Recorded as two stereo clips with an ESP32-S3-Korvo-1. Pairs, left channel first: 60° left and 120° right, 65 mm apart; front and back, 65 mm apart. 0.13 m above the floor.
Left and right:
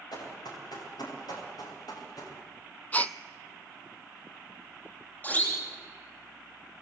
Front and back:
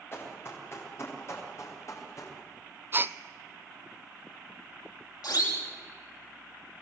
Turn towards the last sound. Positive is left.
turn(degrees=0)